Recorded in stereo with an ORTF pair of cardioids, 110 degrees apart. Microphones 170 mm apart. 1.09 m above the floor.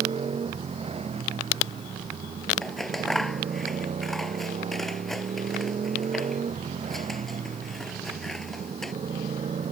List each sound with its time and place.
0.0 s a motorcycle: 35° right; by 9.7 s 40° right
2.6 s scissors: straight ahead